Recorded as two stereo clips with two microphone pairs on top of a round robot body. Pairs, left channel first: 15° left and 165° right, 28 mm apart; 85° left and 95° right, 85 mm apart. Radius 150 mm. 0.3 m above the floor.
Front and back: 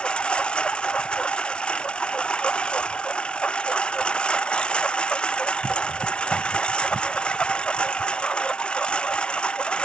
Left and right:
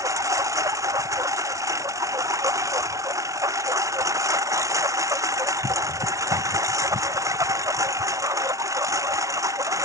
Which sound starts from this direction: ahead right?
A lawn mower, at 0.0 s.